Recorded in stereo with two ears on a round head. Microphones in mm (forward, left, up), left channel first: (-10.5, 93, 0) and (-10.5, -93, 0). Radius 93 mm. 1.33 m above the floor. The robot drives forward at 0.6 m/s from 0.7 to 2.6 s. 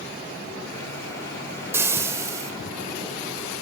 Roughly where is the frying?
Centre.